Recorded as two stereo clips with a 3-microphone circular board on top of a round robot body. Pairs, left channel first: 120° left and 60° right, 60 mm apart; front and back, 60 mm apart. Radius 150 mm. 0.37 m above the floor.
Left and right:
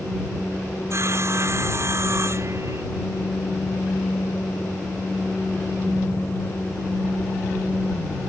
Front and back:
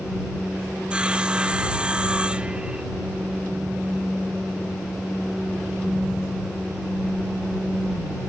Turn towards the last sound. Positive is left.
turn(degrees=-105)